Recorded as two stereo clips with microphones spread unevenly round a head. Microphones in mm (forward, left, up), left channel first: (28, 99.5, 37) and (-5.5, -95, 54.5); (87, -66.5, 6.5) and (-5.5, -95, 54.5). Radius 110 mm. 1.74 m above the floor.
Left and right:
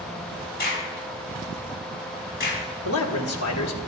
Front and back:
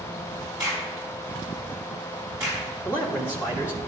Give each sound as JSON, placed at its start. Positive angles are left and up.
{"t": 0.6, "sound": "a crack", "azimuth_deg": 120, "distance_m": 5.0}
{"t": 2.9, "sound": "a man speaking", "azimuth_deg": 90, "distance_m": 1.7}